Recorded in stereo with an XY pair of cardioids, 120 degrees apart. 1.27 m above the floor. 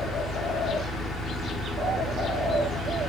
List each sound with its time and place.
0.0 s a fan: 45° left, 1.7 m